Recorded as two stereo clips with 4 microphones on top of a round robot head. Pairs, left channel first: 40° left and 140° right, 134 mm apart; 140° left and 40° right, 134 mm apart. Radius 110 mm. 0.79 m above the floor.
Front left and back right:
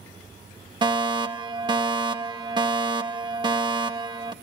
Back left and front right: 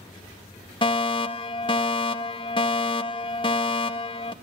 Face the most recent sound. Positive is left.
turn(degrees=175)